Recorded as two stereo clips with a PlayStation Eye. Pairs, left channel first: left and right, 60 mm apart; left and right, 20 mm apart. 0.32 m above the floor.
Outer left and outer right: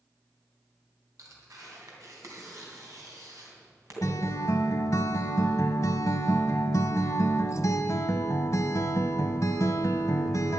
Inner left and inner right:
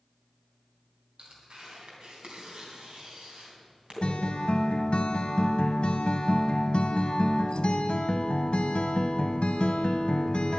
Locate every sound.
1.2 s tearing paper: 60° right (ahead or behind), 3 m
4.0 s a guitar: 60° left (ahead or behind), 1.1 m